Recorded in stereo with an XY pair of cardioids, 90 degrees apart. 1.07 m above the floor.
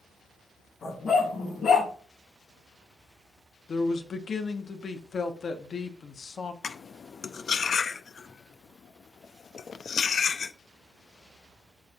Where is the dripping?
No dripping in this recording.